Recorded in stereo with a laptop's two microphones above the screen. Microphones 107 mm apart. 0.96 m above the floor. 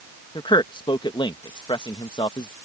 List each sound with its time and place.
0.3 s a man speaking: 50° left (ahead or behind)